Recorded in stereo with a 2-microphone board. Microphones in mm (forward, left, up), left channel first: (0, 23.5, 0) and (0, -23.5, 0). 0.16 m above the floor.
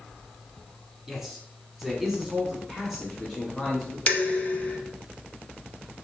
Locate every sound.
1.1 s a man speaking: 5° right (ahead or behind), 1.3 m; by 4.0 s centre (ahead or behind), 1.8 m
4.1 s dishes clattering: 35° left (ahead or behind), 0.8 m